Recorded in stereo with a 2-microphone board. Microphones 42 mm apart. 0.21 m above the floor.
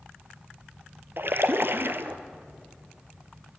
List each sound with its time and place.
1.2 s a splash: 60° right (ahead or behind), 1.0 m